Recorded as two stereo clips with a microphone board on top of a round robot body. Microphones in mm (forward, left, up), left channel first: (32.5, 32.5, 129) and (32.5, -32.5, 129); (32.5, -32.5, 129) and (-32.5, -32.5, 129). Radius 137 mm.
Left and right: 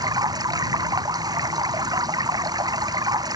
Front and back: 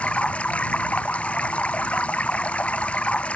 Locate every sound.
0.0 s running water: 70° right